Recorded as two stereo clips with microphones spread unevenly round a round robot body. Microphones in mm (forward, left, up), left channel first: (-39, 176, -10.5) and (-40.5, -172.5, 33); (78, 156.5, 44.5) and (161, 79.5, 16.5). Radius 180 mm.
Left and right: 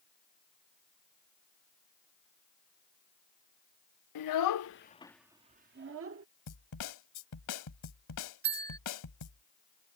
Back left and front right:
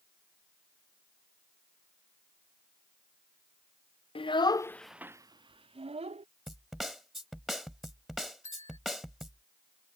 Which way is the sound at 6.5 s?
50° left.